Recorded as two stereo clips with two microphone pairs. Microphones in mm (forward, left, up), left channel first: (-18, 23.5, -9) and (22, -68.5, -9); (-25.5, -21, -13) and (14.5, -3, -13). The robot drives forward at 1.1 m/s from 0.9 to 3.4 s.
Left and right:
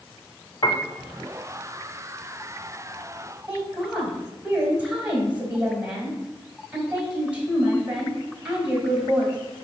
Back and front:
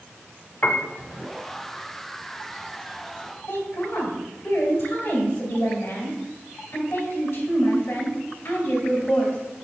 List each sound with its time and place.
0.6 s a piano: 155° left, 0.7 m
3.5 s a woman speaking: 145° right, 3 m